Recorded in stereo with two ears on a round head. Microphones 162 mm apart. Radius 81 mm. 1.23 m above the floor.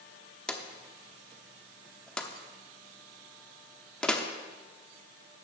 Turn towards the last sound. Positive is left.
turn(degrees=5)  # may be behind; listen again after turning